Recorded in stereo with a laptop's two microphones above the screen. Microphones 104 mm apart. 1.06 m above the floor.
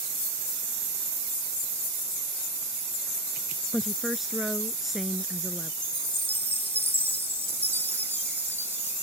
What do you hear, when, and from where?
3.7 s a woman speaking: centre (ahead or behind)
5.8 s a chime: 20° right (ahead or behind)